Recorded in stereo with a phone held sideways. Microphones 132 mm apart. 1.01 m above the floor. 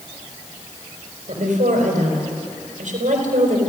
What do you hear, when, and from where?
1.3 s a woman speaking: 75° right (ahead or behind), 4.5 m